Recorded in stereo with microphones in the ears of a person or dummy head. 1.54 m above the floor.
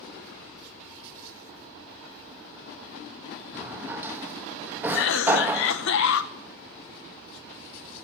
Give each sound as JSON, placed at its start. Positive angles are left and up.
{"t": 3.5, "sound": "a drawer", "side_deg": -10, "distance_m": 1.1}
{"t": 4.9, "sound": "a cough", "side_deg": 75, "distance_m": 1.4}